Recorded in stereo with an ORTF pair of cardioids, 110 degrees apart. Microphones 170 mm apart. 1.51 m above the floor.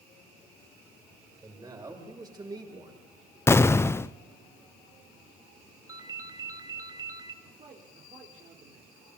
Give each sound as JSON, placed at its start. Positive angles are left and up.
{"t": 1.4, "sound": "a man speaking", "azimuth_deg": -20, "distance_m": 7.5}
{"t": 3.5, "sound": "an explosion", "azimuth_deg": 15, "distance_m": 0.8}
{"t": 5.9, "sound": "a ringtone", "azimuth_deg": -20, "distance_m": 2.0}
{"t": 7.4, "sound": "a man speaking", "azimuth_deg": -40, "distance_m": 4.0}